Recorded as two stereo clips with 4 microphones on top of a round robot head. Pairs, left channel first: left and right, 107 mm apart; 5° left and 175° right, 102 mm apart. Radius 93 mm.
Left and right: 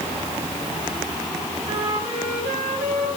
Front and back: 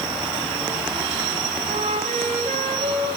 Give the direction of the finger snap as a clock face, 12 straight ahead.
I don't hear a finger snap.